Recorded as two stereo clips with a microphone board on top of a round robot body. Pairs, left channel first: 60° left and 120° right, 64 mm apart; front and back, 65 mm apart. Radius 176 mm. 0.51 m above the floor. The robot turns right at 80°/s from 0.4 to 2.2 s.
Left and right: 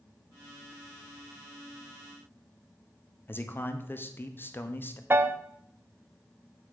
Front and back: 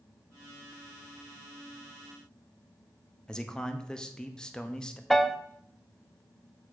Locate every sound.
3.3 s a man speaking: 70° left, 1.2 m
5.1 s a piano: 85° right, 0.8 m